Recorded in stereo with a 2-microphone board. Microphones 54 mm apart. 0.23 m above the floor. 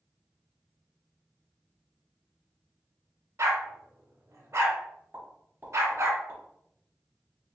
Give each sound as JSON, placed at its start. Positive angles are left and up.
{"t": 3.4, "sound": "a dog barking", "side_deg": -65, "distance_m": 0.7}
{"t": 5.1, "sound": "a pop", "side_deg": -35, "distance_m": 1.1}